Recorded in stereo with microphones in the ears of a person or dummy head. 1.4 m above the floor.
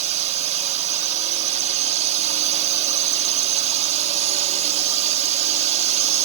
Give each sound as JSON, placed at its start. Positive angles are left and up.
{"t": 0.0, "sound": "a drone", "side_deg": -35}